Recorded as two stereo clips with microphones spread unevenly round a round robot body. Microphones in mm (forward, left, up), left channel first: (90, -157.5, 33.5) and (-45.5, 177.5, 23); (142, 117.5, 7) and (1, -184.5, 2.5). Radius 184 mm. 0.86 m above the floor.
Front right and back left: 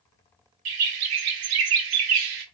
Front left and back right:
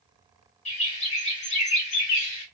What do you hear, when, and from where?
0.7 s a bird: 135° left, 0.6 m